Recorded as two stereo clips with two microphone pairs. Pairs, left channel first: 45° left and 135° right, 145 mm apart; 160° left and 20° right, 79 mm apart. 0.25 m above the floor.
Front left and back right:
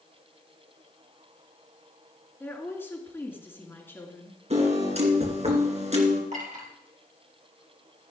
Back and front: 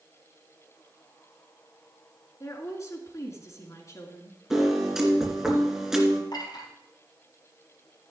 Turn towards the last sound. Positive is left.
turn(degrees=-170)